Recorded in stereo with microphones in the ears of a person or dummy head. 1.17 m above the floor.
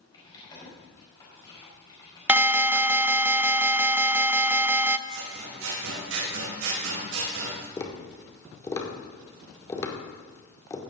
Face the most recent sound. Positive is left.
turn(degrees=20)  # may be behind; listen again after turning